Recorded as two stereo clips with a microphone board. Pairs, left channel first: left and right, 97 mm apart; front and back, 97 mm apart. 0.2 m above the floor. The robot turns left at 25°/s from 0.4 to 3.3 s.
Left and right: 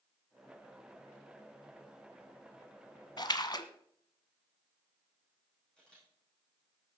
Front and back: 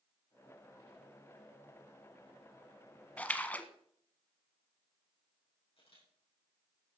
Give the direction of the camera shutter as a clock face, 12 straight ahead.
12 o'clock.